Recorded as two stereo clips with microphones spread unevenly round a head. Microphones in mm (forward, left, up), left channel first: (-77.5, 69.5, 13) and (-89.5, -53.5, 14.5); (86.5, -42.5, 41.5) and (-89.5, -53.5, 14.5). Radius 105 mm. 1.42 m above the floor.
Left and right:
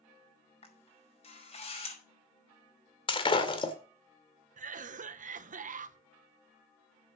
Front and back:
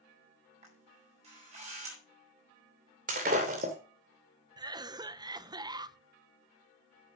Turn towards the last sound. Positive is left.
turn(degrees=-110)